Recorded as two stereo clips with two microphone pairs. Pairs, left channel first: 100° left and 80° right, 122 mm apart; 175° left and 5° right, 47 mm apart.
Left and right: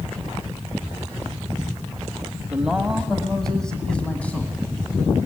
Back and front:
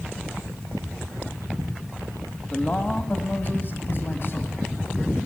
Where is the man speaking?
155° right, 1.5 m; by 5.2 s 170° left, 2.5 m.